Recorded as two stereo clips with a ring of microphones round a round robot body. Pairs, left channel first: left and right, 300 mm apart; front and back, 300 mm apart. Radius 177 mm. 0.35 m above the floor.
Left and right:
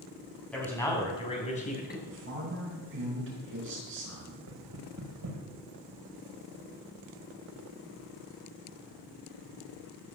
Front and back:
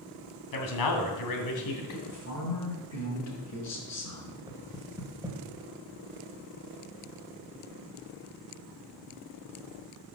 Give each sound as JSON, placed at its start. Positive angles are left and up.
{"t": 0.5, "sound": "a man speaking", "azimuth_deg": 5, "distance_m": 3.0}
{"t": 2.1, "sound": "a woman speaking", "azimuth_deg": -35, "distance_m": 5.0}
{"t": 4.5, "sound": "knocking", "azimuth_deg": -105, "distance_m": 2.0}